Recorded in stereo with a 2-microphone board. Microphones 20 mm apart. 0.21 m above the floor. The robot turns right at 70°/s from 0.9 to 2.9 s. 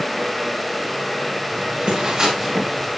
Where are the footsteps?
85° right, 7.5 m; by 2.9 s centre (ahead or behind), 6.5 m.